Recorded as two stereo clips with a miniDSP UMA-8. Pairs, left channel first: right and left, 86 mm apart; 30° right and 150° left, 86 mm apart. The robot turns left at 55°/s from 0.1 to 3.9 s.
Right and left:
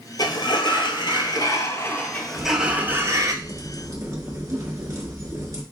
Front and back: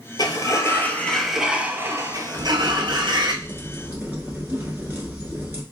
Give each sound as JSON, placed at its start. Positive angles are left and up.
{"t": 0.2, "sound": "a sliding door", "azimuth_deg": -60, "distance_m": 0.6}
{"t": 2.3, "sound": "a crack", "azimuth_deg": 175, "distance_m": 1.1}